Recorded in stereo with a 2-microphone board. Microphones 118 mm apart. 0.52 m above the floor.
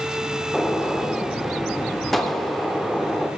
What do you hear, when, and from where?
0.5 s a gunshot: centre (ahead or behind), 0.7 m